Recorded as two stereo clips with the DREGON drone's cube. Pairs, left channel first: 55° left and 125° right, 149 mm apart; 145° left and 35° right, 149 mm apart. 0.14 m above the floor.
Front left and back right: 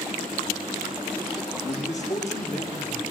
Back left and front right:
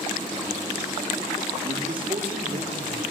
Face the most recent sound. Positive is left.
turn(degrees=15)